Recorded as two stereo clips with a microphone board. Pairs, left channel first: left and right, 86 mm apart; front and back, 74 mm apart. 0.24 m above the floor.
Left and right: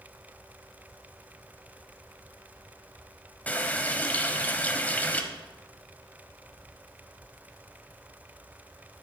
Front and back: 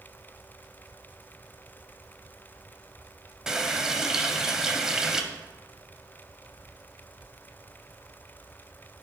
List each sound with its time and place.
3.5 s a running tap: 110° left, 0.6 m